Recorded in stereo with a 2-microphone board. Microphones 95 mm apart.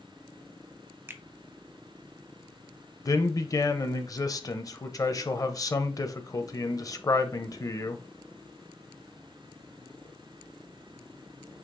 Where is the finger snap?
25° right (ahead or behind), 0.6 m.